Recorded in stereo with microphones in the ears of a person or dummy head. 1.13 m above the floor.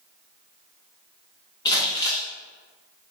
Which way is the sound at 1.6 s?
20° left (ahead or behind).